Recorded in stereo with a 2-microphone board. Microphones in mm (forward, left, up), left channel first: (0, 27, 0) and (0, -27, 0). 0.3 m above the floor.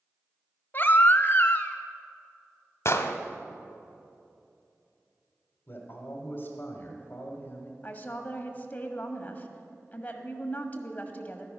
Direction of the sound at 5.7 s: 40° left (ahead or behind).